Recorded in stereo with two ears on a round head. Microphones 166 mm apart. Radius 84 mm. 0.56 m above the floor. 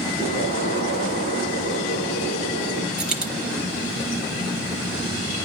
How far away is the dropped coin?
About 4.5 m.